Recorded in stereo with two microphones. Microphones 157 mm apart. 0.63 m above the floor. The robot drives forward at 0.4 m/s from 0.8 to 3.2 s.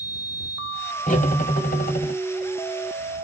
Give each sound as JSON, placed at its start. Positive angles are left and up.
{"t": 1.1, "sound": "cutlery clinking", "side_deg": 65, "distance_m": 1.5}